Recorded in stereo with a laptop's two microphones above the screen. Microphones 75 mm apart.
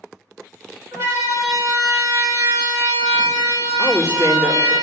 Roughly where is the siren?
Right.